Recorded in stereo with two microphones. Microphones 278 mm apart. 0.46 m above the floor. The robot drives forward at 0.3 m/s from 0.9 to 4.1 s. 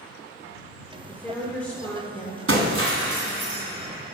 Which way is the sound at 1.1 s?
5° left (ahead or behind).